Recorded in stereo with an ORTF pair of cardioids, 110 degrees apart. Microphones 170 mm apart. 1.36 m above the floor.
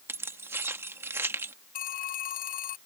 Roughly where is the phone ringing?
Ahead left.